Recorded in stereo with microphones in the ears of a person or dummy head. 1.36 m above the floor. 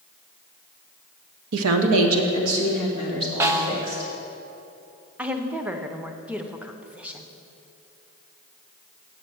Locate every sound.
1.5 s a woman speaking: 80° right, 0.7 m; by 4.1 s 85° right, 4 m
3.4 s a snare drum: 20° right (ahead or behind), 0.6 m
5.2 s a woman speaking: 10° right (ahead or behind), 0.6 m